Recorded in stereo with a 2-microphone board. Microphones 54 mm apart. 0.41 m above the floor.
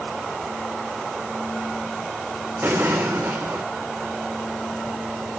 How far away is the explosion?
About 4.5 m.